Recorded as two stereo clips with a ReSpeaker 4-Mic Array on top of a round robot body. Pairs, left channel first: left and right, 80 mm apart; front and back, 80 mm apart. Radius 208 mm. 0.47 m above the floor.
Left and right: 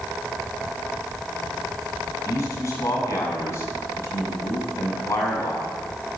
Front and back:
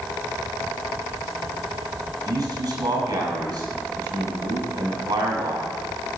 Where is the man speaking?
145° left, 6.5 m.